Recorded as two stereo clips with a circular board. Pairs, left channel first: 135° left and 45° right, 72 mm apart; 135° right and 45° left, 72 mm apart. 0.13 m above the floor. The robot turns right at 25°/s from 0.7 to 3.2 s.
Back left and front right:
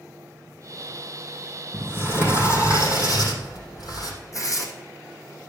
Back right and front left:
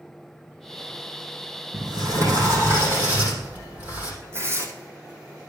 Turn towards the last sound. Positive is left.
turn(degrees=100)